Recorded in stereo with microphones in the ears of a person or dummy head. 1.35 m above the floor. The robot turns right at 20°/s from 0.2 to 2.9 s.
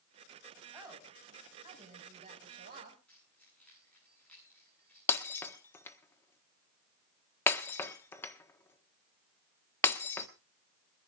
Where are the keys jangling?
10° left (ahead or behind), 10 m.